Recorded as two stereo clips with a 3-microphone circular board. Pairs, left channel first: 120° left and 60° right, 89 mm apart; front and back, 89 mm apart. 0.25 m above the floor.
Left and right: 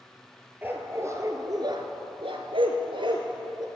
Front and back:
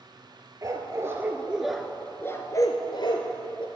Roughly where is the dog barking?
Behind right.